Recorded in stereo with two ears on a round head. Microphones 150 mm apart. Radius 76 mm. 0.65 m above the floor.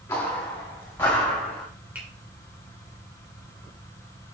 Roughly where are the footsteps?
Centre.